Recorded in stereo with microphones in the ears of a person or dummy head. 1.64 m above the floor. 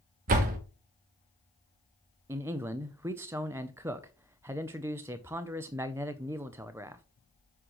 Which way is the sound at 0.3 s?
45° right (ahead or behind).